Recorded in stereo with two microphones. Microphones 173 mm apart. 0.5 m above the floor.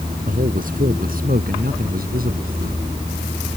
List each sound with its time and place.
0.2 s a man speaking: 55° right (ahead or behind); by 2.9 s 60° right (ahead or behind)